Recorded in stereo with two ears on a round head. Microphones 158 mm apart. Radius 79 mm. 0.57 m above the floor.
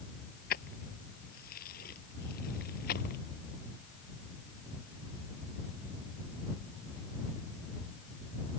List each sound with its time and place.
0.5 s keys jangling: 50° left (ahead or behind)